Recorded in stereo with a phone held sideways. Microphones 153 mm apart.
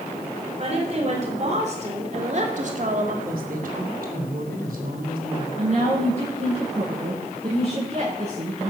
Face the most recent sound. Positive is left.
turn(degrees=-45)  # may be behind; listen again after turning